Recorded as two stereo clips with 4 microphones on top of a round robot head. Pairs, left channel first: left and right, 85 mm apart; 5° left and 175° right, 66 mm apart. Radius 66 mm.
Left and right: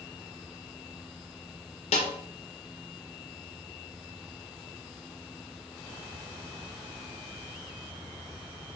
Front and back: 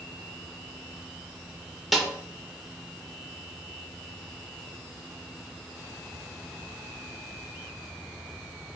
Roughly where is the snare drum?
Left.